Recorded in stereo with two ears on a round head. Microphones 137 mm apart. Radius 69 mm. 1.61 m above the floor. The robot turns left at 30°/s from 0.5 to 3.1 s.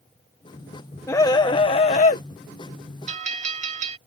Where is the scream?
160° left; by 2.2 s 125° left.